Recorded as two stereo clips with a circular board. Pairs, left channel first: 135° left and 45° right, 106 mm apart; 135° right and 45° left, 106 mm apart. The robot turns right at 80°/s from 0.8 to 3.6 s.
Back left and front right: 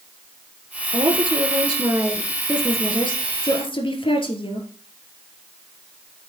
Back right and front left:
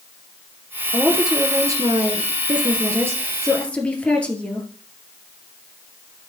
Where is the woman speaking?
65° right, 2 m; by 4.7 s 150° left, 2 m.